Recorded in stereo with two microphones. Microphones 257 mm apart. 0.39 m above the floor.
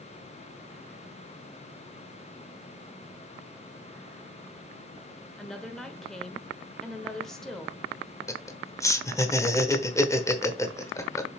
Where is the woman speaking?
Centre (ahead or behind), 1.2 m.